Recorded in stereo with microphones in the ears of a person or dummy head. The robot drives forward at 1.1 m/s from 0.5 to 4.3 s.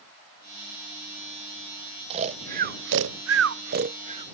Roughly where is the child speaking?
I don't hear a child speaking.